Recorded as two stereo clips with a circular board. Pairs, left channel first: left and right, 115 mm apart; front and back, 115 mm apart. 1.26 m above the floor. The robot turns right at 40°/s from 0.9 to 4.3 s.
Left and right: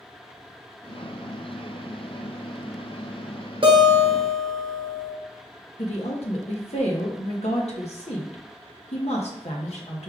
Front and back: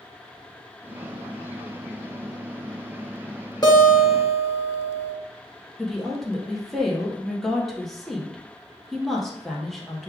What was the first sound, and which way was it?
A guitar, 55° right.